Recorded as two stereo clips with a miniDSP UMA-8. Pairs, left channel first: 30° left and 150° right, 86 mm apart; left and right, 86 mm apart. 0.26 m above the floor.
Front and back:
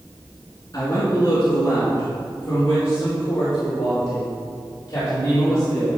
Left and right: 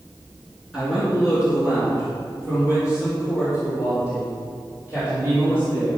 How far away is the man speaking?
About 3 m.